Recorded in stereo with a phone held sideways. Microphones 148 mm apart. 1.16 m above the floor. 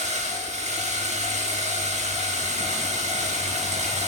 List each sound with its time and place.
0.0 s a machine running: 50° right (ahead or behind), 1.3 m